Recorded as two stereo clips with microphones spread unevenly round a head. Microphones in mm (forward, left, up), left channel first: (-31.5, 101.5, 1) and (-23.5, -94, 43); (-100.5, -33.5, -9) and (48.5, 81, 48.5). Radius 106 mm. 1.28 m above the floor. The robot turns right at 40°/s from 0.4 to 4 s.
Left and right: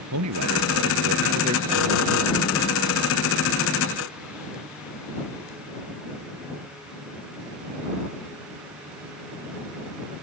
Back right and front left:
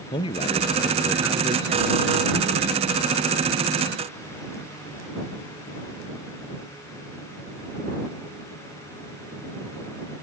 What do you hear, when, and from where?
0.1 s a man speaking: 75° right; by 2.8 s 25° left